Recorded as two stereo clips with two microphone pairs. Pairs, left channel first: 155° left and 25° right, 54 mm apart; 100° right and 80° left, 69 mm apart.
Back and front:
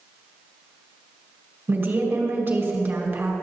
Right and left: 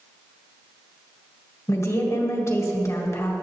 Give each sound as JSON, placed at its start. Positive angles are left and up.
{"t": 1.7, "sound": "a woman speaking", "azimuth_deg": -75, "distance_m": 1.8}